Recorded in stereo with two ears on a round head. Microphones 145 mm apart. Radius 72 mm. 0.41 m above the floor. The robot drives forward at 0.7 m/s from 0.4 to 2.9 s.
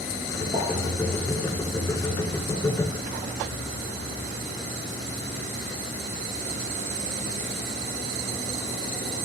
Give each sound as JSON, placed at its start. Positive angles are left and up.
{"t": 0.5, "sound": "a pop", "side_deg": -35, "distance_m": 5.5}